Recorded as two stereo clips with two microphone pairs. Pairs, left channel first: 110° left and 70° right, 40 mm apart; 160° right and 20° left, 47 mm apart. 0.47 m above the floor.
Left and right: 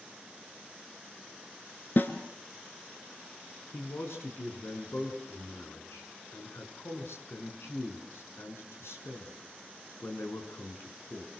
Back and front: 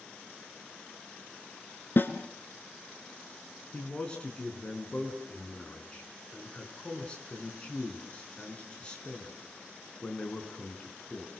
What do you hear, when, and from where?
2.0 s a snare drum: 155° left, 2 m
3.7 s a man speaking: 130° left, 6 m